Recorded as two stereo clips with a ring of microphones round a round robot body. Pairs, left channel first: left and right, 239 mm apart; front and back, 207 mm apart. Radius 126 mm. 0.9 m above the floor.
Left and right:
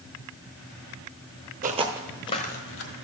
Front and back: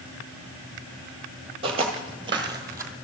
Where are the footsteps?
125° right, 1.1 m; by 2.9 s 105° left, 1.4 m.